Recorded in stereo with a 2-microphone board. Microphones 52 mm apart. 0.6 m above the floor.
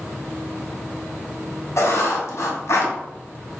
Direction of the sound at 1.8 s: 70° left (ahead or behind).